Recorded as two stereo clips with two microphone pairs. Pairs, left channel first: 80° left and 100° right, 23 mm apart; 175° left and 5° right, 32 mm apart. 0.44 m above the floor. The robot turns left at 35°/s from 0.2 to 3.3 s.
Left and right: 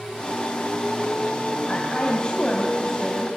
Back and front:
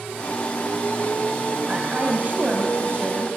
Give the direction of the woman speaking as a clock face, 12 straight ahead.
10 o'clock.